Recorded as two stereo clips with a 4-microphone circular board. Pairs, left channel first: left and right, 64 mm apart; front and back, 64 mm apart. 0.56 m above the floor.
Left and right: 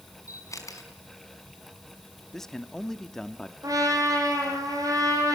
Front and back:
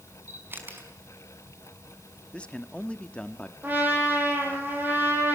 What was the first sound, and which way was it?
A camera shutter, 120° left.